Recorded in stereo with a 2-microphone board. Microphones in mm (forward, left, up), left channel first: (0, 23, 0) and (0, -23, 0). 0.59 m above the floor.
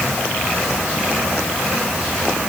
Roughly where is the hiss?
I don't hear a hiss.